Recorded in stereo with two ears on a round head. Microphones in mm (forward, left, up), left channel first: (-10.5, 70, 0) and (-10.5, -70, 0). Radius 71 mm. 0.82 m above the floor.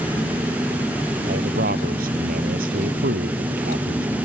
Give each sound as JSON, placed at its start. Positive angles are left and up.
{"t": 1.3, "sound": "a man speaking", "side_deg": -60}